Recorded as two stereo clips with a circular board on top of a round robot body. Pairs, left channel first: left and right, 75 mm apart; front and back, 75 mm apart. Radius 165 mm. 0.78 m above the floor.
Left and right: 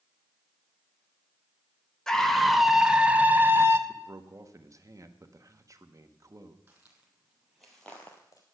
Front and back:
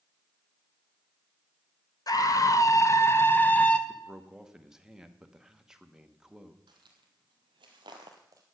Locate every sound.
2.1 s a scream: 10° left, 1.5 m; by 3.8 s 70° right, 1.1 m
3.9 s a man speaking: 100° right, 1.3 m
6.7 s footsteps: 155° right, 1.6 m; by 8.4 s 125° left, 0.9 m